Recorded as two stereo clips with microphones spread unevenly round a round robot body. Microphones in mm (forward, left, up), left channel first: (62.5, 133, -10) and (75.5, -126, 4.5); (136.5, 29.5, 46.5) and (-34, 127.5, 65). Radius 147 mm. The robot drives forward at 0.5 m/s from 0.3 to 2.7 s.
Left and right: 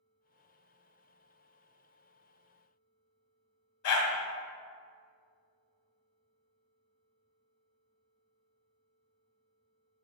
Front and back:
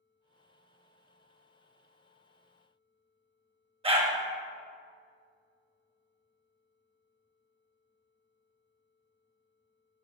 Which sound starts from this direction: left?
A dog barking, at 3.8 s.